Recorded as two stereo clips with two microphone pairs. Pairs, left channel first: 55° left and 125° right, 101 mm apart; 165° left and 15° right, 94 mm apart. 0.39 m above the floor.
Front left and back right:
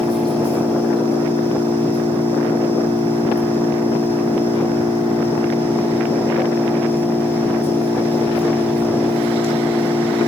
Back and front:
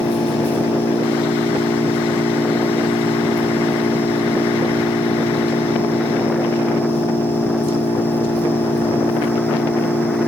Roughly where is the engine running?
Behind.